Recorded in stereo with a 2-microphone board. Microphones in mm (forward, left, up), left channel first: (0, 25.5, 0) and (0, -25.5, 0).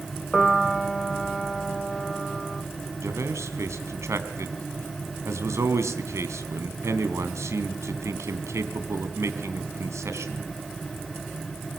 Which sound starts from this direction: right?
A man speaking, at 3.0 s.